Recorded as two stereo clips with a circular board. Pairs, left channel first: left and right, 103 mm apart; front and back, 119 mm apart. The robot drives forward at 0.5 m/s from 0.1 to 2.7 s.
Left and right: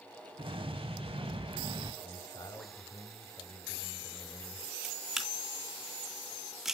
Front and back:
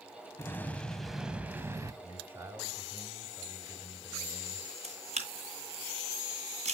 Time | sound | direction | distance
0.4 | an explosion | 65° right | 0.9 m
2.0 | a man speaking | 110° left | 2 m
4.8 | a camera shutter | 175° right | 2.0 m